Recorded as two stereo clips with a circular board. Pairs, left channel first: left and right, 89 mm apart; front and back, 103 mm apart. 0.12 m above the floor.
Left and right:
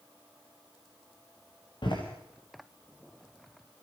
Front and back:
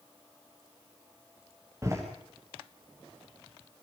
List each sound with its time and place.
1.8 s a door slam: 120° left, 7.5 m